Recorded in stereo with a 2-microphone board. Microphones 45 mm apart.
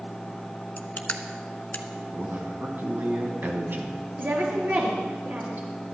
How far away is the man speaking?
About 2.5 m.